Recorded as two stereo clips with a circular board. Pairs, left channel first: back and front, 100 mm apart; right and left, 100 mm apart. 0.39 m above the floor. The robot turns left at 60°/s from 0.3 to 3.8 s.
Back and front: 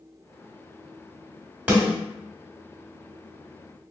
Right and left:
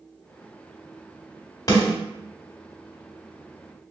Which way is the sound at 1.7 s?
65° right.